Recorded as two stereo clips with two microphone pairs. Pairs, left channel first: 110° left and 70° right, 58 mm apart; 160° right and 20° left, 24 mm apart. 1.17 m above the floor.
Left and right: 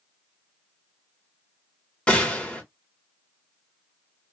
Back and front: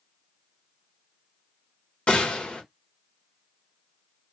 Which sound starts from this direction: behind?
A gunshot, at 2.1 s.